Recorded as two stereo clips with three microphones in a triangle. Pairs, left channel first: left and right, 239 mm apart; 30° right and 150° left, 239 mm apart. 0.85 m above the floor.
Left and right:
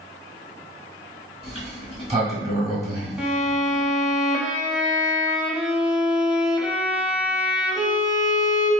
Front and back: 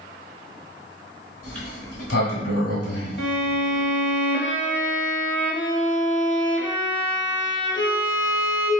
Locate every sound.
1.4 s a sliding door: 25° right, 1.4 m
3.2 s a violin: 5° right, 0.8 m